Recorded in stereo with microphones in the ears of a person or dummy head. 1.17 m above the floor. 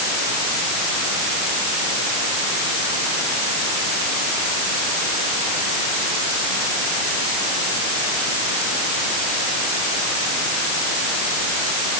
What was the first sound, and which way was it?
Only background noise.